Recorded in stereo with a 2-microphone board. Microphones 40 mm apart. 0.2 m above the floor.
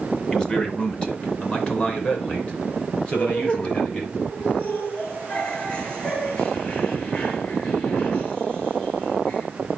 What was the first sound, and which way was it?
A man speaking, 15° left (ahead or behind).